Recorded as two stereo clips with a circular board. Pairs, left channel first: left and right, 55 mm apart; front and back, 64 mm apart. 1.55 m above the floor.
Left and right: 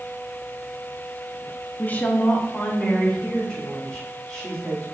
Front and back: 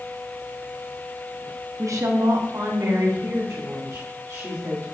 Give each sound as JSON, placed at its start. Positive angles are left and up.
{"t": 1.8, "sound": "a woman speaking", "azimuth_deg": 145, "distance_m": 0.6}